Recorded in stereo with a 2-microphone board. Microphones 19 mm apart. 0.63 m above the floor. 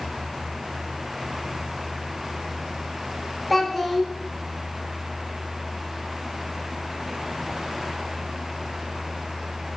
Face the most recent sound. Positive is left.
turn(degrees=5)  # may be behind; listen again after turning